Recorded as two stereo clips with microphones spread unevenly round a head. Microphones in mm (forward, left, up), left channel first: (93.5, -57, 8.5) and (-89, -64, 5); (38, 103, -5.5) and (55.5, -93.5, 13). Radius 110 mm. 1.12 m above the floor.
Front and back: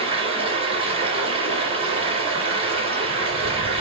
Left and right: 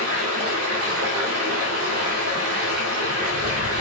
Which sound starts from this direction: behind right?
Running water, at 0.0 s.